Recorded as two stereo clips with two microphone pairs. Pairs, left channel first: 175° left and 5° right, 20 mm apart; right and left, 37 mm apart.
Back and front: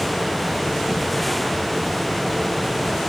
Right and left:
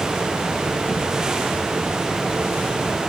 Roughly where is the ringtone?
No ringtone in this recording.